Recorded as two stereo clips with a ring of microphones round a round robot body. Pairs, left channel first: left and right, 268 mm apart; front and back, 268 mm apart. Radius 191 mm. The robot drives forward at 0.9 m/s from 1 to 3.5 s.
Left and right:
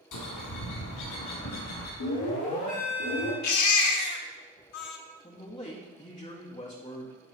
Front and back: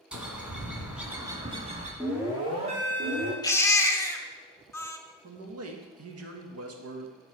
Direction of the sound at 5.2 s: 165° left.